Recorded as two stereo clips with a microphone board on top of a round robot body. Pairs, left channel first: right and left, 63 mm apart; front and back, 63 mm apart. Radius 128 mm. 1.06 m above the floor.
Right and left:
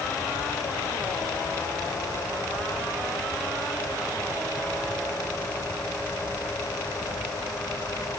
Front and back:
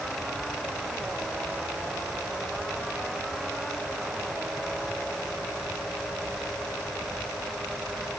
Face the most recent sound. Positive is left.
No sound to turn to.